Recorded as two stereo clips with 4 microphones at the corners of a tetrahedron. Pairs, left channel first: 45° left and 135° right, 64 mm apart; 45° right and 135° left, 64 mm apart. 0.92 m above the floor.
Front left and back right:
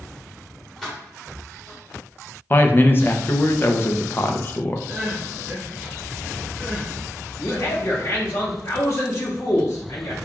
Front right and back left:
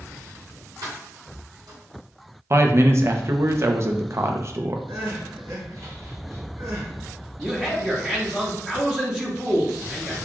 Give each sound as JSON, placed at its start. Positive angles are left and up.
{"t": 0.8, "sound": "keys jangling", "azimuth_deg": 130, "distance_m": 1.5}
{"t": 2.5, "sound": "a man speaking", "azimuth_deg": 100, "distance_m": 0.5}
{"t": 4.9, "sound": "crying", "azimuth_deg": 160, "distance_m": 1.1}
{"t": 7.4, "sound": "a man speaking", "azimuth_deg": 65, "distance_m": 0.9}